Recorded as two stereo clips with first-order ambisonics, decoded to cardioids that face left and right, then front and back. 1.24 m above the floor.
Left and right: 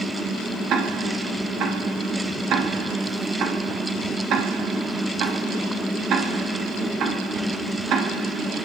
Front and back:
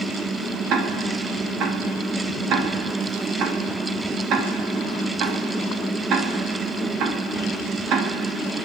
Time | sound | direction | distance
0.7 | ticking | 135° right | 2.5 m